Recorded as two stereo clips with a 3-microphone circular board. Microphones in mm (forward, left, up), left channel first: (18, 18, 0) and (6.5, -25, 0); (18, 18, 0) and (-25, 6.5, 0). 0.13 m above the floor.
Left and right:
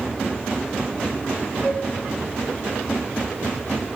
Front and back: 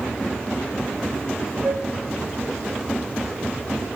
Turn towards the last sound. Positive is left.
turn(degrees=165)